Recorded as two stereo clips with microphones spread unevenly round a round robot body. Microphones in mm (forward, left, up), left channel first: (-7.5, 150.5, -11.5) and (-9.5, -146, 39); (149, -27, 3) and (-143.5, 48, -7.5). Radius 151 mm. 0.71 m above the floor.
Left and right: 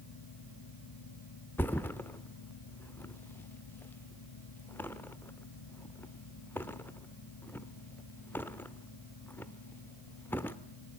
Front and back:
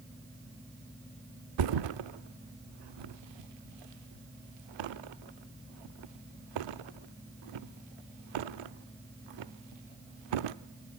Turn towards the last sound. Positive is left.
turn(degrees=175)